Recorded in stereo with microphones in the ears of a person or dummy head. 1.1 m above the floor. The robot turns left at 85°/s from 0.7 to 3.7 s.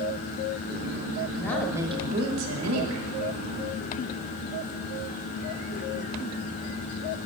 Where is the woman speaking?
20° left, 1.2 m; by 3.1 s 130° right, 1.2 m.